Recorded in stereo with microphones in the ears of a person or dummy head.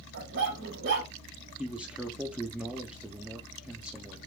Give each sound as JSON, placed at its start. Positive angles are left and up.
{"t": 0.1, "sound": "a dog barking", "side_deg": -60, "distance_m": 1.5}
{"t": 1.6, "sound": "a man speaking", "side_deg": -10, "distance_m": 0.6}